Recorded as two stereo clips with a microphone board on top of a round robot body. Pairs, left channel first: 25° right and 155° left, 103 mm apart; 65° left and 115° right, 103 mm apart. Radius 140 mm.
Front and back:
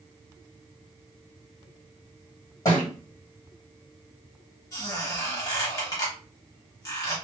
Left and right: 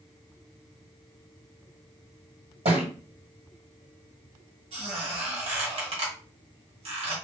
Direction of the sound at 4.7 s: 80° right.